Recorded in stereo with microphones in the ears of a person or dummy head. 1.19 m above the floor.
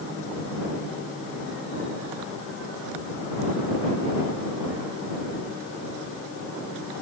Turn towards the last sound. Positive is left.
No sound to turn to.